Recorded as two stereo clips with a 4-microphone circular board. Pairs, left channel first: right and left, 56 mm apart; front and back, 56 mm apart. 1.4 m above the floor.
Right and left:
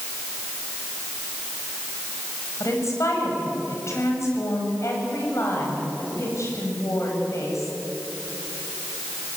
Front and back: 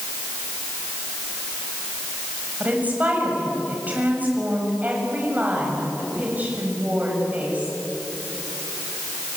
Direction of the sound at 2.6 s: 120° right.